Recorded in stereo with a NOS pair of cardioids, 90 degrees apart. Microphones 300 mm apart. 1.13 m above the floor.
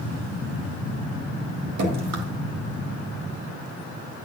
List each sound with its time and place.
1.8 s dripping: 60° right, 3 m